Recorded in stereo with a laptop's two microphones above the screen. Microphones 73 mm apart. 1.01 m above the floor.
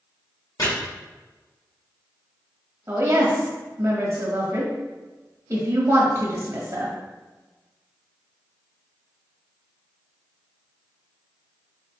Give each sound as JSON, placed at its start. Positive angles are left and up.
{"t": 0.6, "sound": "chopping", "side_deg": 75, "distance_m": 1.7}
{"t": 2.9, "sound": "a woman speaking", "side_deg": -45, "distance_m": 1.2}